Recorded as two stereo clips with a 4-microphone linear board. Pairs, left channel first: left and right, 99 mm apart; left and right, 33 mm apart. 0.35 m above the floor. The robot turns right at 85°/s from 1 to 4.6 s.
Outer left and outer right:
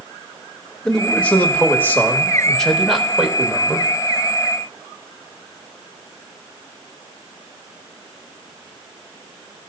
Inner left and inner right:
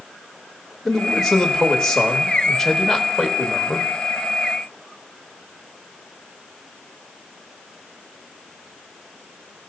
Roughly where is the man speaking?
Centre.